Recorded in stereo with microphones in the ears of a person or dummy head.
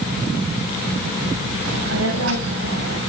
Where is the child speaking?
75° right (ahead or behind), 4.5 m; by 3.0 s 85° right, 4.5 m.